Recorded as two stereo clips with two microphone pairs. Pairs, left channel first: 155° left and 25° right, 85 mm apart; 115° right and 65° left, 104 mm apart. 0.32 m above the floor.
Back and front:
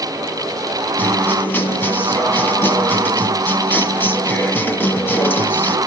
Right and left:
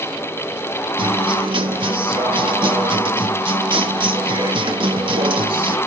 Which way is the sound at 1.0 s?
90° left.